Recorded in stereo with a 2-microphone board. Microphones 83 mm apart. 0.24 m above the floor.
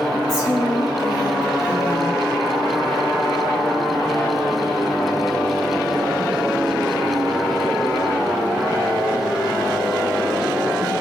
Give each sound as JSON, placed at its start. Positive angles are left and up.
{"t": 0.3, "sound": "a woman speaking", "side_deg": 60, "distance_m": 7.5}